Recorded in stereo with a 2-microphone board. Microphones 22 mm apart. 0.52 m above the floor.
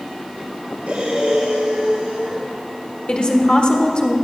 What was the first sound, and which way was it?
Breathing, 80° right.